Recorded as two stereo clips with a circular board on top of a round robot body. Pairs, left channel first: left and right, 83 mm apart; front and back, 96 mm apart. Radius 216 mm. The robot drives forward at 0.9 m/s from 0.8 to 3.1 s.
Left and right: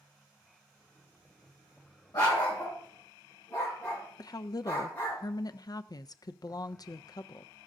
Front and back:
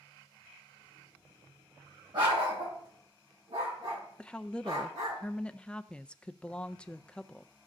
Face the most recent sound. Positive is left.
turn(degrees=75)